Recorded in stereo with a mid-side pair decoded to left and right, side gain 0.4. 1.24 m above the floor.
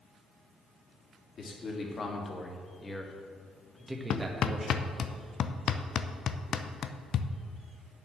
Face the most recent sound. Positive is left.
turn(degrees=65)